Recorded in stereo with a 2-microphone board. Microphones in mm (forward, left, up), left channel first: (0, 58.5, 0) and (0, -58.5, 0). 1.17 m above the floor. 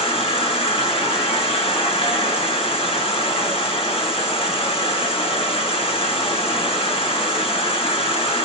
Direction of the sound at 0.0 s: 60° left (ahead or behind).